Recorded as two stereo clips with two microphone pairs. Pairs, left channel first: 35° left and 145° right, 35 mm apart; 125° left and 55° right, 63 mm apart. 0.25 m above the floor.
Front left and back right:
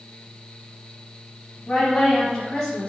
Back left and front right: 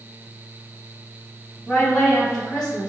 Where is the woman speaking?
55° left, 1.2 m.